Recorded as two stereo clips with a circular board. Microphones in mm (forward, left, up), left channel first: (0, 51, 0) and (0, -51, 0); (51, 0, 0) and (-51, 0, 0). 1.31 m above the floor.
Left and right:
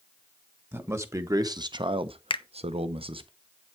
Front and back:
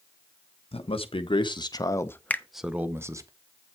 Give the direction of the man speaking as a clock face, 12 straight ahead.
1 o'clock.